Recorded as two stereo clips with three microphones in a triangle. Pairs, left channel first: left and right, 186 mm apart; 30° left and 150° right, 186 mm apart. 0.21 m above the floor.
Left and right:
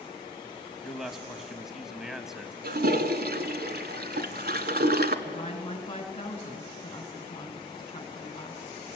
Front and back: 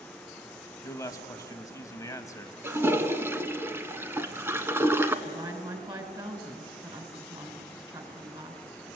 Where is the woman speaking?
145° left, 2.5 m.